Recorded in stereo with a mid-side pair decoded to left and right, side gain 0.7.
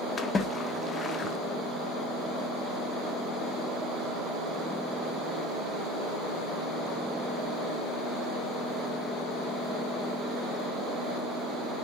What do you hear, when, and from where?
0.2 s a splash: 25° left, 1.2 m